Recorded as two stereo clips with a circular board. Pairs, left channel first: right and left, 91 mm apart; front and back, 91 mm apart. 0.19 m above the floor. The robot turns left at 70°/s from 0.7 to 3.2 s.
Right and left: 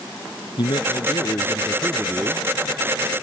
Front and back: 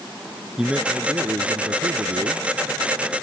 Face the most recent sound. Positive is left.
turn(degrees=85)